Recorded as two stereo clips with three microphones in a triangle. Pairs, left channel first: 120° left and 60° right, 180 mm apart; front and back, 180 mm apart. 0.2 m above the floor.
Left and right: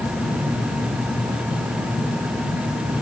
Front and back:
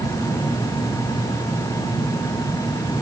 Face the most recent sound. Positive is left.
No sound to turn to.